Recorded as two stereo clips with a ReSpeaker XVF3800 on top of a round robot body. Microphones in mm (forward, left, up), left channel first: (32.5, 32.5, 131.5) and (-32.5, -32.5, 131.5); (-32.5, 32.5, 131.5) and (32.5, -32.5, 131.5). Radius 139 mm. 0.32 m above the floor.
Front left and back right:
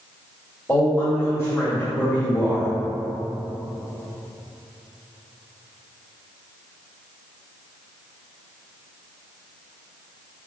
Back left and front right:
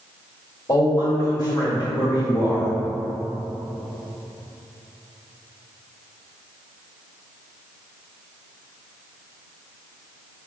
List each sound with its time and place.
0.7 s a man speaking: 115° left, 1.8 m